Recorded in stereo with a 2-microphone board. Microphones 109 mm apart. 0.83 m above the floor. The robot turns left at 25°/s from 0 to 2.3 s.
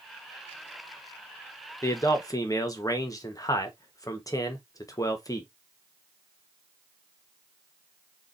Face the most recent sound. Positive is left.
turn(degrees=30)  # may be behind; listen again after turning